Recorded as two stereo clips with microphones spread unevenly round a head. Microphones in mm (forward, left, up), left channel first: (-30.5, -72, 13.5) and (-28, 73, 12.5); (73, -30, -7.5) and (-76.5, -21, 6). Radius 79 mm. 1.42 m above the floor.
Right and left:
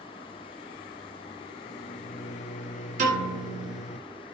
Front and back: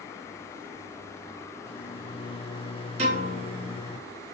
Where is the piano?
125° left, 4.5 m.